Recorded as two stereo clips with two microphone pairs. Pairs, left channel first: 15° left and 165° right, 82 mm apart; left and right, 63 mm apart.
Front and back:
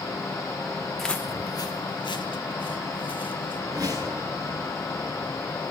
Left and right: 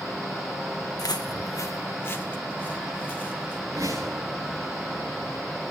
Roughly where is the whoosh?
Behind right.